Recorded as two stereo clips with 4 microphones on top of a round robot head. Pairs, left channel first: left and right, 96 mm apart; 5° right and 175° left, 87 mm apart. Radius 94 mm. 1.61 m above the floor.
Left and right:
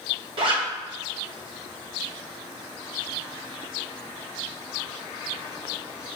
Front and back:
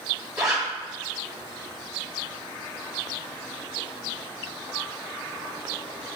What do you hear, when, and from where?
0.4 s a zipper: 110° right, 0.6 m